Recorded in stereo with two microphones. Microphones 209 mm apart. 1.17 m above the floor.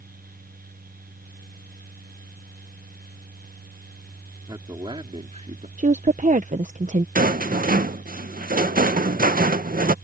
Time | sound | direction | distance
4.5 | a man speaking | 20° right (ahead or behind) | ?
5.8 | a woman speaking | 35° right (ahead or behind) | ?
7.2 | a rattle | 45° right (ahead or behind) | ?